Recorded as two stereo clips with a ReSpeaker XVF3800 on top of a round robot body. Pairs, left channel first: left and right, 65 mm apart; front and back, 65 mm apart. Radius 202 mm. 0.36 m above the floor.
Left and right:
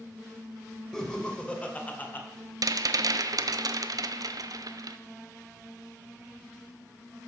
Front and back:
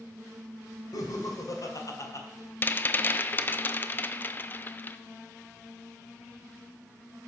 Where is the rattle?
60° right, 0.5 m.